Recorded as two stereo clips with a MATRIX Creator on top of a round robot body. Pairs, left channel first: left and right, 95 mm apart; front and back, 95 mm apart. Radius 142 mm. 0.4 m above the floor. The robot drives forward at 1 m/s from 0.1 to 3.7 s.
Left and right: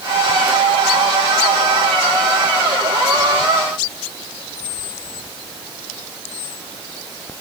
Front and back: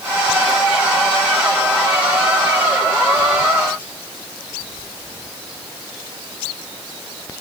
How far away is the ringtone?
I don't hear a ringtone.